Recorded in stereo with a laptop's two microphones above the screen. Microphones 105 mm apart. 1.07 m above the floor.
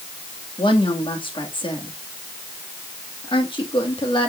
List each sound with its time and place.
0.6 s a woman speaking: 55° left (ahead or behind), 2.0 m